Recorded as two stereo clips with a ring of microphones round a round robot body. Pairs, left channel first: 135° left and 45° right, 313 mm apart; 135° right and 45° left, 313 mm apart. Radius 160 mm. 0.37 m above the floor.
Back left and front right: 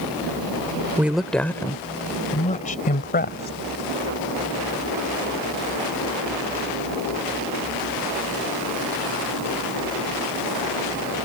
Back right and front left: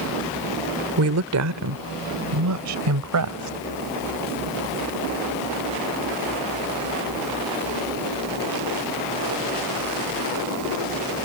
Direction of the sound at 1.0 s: 40° left.